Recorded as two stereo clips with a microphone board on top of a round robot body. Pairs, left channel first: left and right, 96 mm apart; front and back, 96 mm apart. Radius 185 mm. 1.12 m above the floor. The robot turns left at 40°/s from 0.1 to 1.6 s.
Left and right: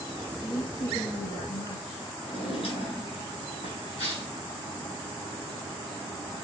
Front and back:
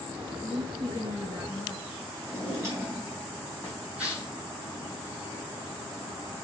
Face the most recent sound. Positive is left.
turn(degrees=105)